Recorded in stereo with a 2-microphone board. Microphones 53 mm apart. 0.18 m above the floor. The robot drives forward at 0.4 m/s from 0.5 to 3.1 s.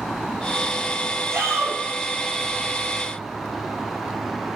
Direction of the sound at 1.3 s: 75° right (ahead or behind).